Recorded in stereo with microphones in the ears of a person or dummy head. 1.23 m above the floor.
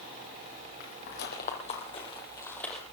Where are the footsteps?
60° left (ahead or behind), 2.5 m; by 2.8 s centre (ahead or behind), 1.8 m.